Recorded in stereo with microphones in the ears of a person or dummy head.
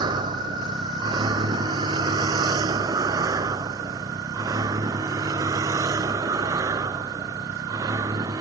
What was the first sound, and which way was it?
A vehicle, 25° right (ahead or behind).